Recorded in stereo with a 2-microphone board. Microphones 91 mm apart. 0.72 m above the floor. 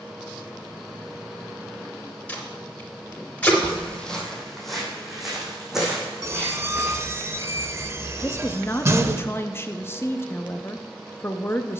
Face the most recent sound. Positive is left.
turn(degrees=25)  # may be behind; listen again after turning